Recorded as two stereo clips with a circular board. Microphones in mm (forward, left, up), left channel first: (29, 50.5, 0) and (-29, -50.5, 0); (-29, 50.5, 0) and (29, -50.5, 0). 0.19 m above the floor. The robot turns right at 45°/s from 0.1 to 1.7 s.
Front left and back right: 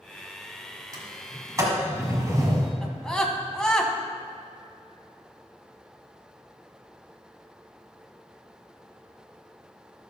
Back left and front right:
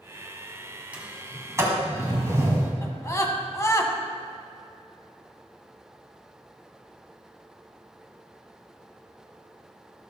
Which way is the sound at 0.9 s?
130° right.